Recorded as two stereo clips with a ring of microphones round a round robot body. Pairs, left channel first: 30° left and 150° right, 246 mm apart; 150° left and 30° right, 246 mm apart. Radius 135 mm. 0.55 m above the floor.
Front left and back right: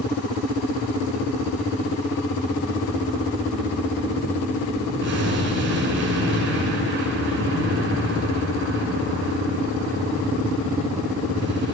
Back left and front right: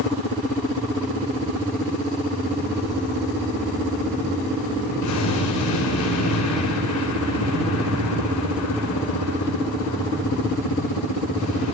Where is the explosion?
165° left, 8 m.